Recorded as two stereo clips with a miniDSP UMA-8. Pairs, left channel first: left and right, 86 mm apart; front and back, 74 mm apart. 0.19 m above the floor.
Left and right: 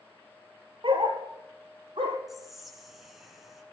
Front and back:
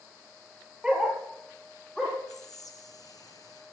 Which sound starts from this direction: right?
A dog barking, at 0.8 s.